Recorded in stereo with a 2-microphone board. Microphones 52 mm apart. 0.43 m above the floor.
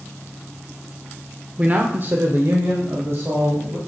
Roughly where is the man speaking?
Right.